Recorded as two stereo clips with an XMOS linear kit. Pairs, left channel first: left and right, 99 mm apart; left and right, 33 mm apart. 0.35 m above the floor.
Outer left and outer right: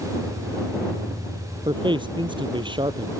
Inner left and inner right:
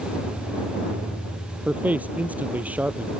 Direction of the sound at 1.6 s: 55° right (ahead or behind).